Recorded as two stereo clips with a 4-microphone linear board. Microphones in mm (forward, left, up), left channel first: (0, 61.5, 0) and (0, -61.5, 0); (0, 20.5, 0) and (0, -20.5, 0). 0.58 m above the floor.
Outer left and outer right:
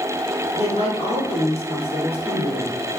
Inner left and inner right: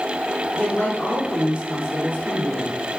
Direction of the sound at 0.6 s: 55° left (ahead or behind).